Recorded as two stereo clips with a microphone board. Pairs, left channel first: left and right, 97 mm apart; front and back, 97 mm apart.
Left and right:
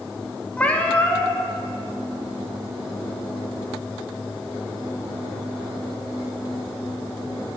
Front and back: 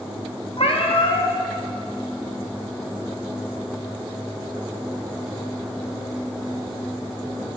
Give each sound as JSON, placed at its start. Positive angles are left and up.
{"t": 0.6, "sound": "a cat meowing", "azimuth_deg": 15, "distance_m": 0.6}